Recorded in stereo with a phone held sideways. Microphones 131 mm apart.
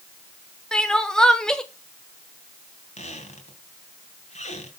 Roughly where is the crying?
Centre.